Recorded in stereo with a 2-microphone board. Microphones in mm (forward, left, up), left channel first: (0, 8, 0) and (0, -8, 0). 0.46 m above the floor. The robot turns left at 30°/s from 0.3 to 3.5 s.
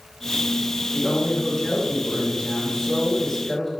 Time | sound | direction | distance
0.9 | a woman speaking | 125° left | 1.4 m